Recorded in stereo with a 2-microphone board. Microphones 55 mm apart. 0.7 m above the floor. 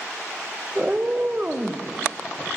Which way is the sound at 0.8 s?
30° right (ahead or behind).